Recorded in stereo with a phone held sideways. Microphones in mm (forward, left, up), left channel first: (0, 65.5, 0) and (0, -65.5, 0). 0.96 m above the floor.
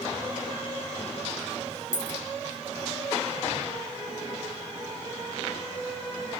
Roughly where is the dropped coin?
Left.